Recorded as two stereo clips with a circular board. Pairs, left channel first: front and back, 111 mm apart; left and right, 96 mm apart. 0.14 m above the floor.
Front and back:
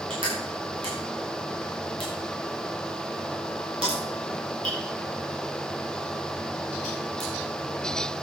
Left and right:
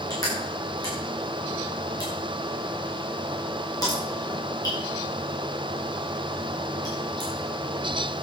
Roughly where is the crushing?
Behind left.